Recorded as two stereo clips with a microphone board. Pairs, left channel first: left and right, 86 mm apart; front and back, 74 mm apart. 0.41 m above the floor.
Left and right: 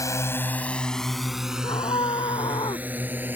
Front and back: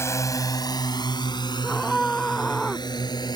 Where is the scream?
85° left.